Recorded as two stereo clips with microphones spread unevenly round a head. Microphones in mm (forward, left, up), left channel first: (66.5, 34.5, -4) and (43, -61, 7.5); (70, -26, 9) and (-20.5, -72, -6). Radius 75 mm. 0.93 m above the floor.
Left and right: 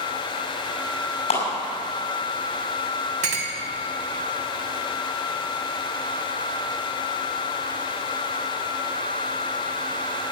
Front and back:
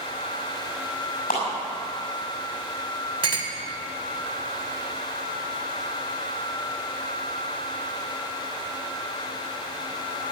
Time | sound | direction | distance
1.3 | a clap | 75° left | 6 m
3.2 | a clink | 120° right | 2 m